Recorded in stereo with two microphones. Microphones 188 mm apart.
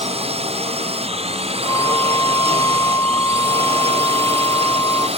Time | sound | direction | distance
0.0 | a drone | 30° right (ahead or behind) | ?
1.6 | a flute | 15° left (ahead or behind) | ?